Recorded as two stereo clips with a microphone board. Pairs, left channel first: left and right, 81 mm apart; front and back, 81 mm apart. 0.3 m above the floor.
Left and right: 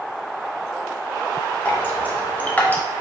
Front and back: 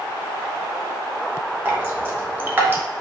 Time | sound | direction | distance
1.6 | dripping | 140° left | 0.9 m